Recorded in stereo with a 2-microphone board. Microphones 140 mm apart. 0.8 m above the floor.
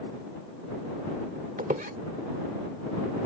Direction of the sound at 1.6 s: 85° right.